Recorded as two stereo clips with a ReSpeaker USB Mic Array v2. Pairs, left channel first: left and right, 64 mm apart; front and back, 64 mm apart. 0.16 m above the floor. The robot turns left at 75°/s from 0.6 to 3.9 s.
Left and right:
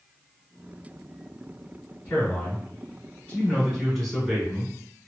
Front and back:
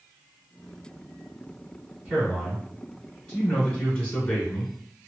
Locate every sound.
2.0 s a man speaking: 140° left, 1.2 m; by 4.7 s 5° left, 1.2 m